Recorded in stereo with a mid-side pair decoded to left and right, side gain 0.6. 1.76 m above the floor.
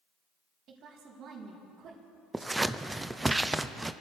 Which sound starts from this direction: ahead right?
A woman speaking, at 0.7 s.